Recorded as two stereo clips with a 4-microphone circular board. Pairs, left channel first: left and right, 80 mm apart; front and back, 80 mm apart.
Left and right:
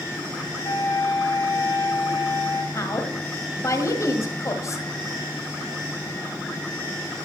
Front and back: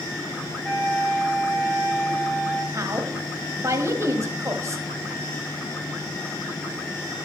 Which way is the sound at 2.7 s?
135° left.